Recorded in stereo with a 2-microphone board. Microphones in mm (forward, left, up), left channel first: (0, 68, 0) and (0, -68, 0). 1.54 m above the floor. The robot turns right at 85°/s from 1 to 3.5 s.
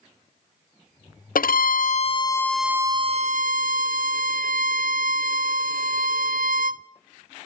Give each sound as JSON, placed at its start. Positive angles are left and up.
{"t": 1.4, "sound": "a violin", "azimuth_deg": 75, "distance_m": 0.5}